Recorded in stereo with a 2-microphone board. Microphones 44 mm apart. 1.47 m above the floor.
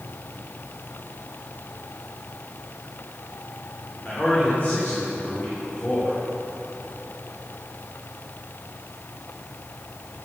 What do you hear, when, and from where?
4.0 s a man speaking: 40° left (ahead or behind), 4 m